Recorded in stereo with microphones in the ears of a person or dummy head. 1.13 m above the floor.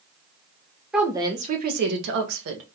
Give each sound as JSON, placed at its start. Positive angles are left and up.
{"t": 0.9, "sound": "a woman speaking", "side_deg": -5, "distance_m": 0.5}